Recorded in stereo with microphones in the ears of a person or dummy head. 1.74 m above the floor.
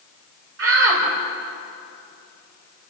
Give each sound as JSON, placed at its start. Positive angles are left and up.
{"t": 0.6, "sound": "a shout", "side_deg": -80, "distance_m": 5.0}